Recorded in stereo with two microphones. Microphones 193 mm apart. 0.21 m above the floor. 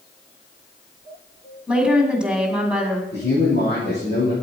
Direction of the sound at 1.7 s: 5° right (ahead or behind).